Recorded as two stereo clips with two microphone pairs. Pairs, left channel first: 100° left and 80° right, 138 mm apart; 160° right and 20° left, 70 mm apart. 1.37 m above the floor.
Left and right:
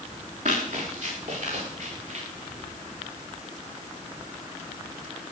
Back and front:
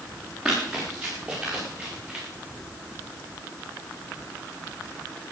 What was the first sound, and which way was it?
Running footsteps, 65° right.